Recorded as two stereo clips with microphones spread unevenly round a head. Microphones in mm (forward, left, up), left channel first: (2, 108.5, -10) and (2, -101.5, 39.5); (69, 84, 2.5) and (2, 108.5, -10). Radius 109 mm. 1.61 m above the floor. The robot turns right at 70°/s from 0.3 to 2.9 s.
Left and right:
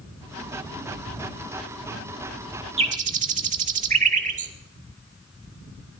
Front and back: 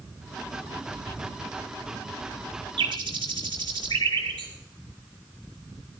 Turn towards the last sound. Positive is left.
turn(degrees=-145)